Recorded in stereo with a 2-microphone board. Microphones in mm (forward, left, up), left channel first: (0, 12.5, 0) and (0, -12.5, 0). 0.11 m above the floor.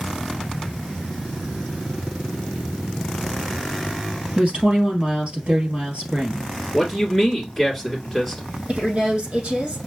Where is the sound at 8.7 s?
65° right (ahead or behind), 4.5 m.